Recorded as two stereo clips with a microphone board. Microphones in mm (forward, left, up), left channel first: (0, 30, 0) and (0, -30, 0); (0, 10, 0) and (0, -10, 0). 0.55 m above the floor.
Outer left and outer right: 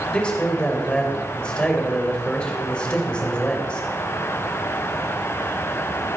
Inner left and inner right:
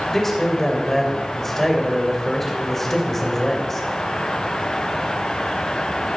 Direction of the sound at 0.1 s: 20° left (ahead or behind).